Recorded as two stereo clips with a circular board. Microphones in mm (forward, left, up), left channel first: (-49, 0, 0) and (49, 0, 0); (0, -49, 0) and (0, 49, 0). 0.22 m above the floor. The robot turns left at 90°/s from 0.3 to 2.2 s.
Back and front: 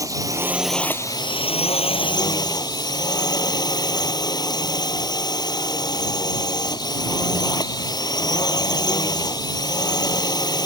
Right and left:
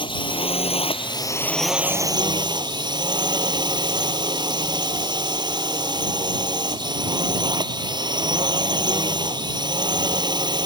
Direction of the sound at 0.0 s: 55° right.